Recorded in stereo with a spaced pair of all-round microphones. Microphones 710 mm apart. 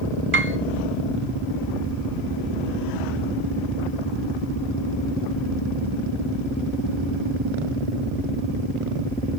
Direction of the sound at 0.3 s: 20° right (ahead or behind).